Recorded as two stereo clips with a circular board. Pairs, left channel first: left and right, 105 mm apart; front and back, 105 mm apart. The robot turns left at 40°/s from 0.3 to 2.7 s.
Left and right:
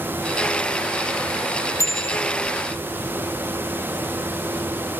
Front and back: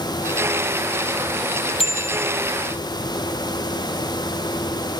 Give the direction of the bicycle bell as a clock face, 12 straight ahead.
11 o'clock.